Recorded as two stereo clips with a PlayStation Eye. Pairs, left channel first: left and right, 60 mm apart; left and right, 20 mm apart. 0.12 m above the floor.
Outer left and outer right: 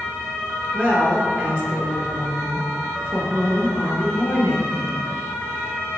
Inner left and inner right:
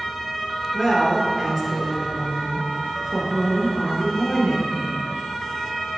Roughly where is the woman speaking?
Right.